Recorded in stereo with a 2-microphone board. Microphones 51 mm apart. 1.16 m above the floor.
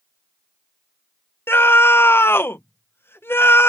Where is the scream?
45° left (ahead or behind).